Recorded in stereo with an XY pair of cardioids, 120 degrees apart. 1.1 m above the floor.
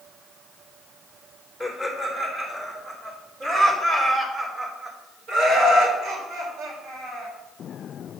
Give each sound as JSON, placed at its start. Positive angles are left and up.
{"t": 1.6, "sound": "laughter", "azimuth_deg": -10, "distance_m": 3.0}